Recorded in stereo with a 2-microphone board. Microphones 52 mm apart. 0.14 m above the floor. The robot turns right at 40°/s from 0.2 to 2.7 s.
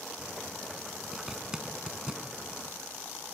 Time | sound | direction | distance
1.1 | a zipper | 10° right (ahead or behind) | 0.7 m